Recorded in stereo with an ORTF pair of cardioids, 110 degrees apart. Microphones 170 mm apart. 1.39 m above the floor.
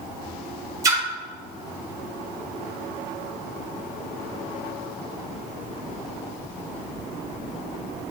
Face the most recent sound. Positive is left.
turn(degrees=-20)